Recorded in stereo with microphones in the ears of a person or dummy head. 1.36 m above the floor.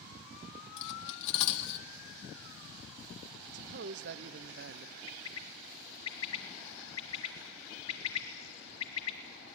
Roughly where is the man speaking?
Right.